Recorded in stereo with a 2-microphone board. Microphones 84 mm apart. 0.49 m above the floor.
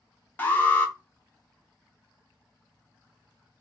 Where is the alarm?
20° left (ahead or behind), 0.8 m.